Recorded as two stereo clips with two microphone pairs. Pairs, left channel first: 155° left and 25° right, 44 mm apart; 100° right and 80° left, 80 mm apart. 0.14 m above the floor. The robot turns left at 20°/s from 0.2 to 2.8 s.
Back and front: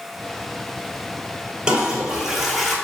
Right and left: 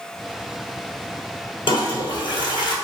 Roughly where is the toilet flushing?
Right.